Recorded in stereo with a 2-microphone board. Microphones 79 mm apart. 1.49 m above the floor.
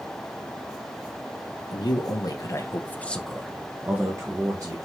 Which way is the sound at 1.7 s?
65° left (ahead or behind).